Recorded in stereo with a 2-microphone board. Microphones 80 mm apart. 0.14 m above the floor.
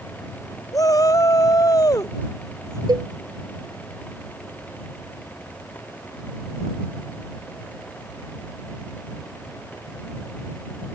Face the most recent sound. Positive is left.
turn(degrees=-60)  # may be behind; listen again after turning